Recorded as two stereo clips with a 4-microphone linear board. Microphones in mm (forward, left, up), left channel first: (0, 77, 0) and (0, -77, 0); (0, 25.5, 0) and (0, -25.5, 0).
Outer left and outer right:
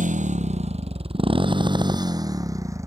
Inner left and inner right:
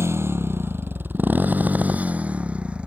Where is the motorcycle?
60° right (ahead or behind); by 2.9 s 20° right (ahead or behind).